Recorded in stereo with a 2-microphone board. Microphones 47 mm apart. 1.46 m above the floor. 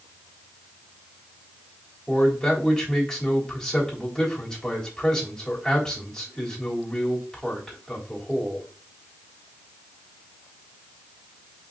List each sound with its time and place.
2.1 s a man speaking: 15° left (ahead or behind), 3.5 m